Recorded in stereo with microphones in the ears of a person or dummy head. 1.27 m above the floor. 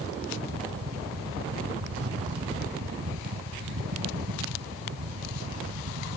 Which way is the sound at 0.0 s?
70° right (ahead or behind).